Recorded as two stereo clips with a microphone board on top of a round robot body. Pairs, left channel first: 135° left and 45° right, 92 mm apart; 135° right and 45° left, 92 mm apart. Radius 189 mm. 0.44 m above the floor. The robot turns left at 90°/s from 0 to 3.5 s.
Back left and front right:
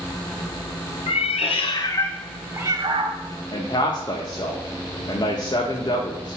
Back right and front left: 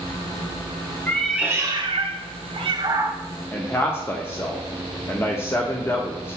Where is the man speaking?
165° left, 1.2 m.